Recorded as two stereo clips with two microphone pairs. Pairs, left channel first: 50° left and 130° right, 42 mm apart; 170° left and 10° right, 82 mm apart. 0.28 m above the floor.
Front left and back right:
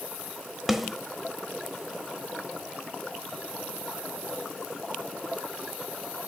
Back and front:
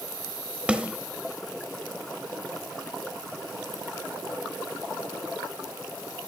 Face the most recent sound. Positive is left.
turn(degrees=-60)